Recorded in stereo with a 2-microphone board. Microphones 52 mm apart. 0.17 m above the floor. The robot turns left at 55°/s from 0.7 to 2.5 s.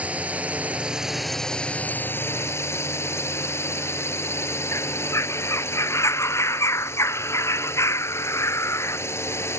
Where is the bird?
65° left (ahead or behind).